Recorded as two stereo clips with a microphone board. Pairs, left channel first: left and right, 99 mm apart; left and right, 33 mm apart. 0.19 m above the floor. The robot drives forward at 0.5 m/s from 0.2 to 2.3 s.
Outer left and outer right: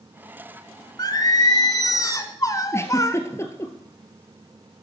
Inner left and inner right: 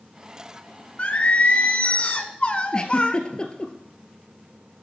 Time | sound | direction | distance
1.0 | singing | 40° left (ahead or behind) | 1.2 m
2.7 | a giggle | 25° left (ahead or behind) | 1.7 m